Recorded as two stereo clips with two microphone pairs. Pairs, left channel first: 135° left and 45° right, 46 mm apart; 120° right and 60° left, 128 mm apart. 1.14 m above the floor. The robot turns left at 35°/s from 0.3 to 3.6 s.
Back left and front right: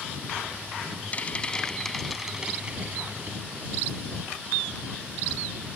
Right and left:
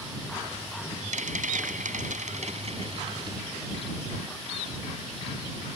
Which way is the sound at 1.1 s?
75° left.